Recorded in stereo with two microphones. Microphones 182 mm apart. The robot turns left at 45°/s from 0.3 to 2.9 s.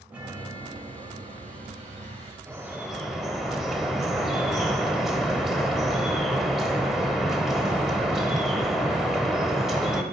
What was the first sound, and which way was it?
A chime, 15° right.